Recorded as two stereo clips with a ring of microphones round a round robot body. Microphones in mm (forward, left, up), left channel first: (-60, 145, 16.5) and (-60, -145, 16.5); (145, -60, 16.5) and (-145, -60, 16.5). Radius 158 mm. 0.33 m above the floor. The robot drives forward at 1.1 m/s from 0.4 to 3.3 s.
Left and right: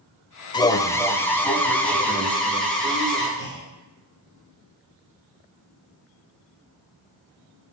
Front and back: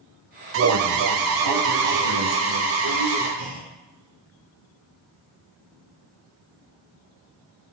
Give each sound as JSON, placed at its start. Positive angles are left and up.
{"t": 0.5, "sound": "an alarm", "azimuth_deg": 160, "distance_m": 0.7}
{"t": 3.4, "sound": "a clunk", "azimuth_deg": -170, "distance_m": 4.0}